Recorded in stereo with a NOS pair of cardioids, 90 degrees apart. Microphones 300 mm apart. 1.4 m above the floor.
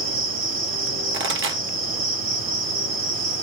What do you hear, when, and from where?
0.0 s an insect: 45° right, 1.2 m
1.1 s a pop: 45° right, 1.3 m